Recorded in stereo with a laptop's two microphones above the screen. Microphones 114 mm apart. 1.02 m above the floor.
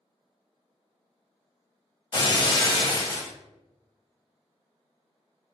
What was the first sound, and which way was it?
Breaking glass, 40° left (ahead or behind).